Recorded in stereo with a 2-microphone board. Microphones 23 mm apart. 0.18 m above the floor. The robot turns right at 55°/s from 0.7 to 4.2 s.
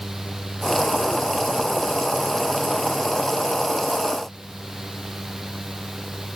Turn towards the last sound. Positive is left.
No sound to turn to.